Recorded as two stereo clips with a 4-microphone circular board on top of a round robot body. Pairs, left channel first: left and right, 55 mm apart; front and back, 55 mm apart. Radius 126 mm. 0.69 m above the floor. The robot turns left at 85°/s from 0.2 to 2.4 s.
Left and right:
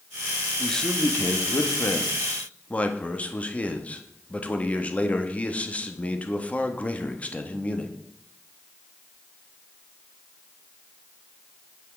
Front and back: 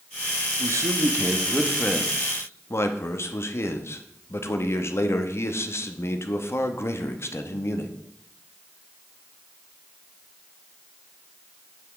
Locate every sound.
0.6 s a man speaking: 175° right, 1.0 m; by 7.9 s 30° left, 1.0 m